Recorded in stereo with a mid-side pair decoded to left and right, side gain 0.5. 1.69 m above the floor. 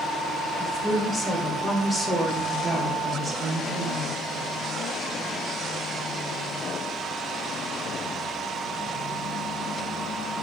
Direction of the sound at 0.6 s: 15° left.